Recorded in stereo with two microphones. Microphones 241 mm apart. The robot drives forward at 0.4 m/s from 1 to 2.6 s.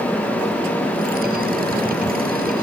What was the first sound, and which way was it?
Only background noise.